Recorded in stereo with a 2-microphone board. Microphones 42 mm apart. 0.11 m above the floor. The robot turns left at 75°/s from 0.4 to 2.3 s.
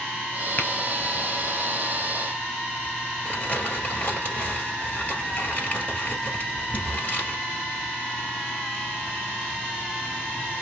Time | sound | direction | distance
0.6 | tapping | 40° left (ahead or behind) | 1.2 m
3.2 | crumpling | 35° left (ahead or behind) | 1.9 m